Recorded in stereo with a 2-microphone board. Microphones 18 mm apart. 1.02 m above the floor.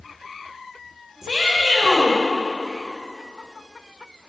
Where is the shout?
35° right (ahead or behind), 4.5 m.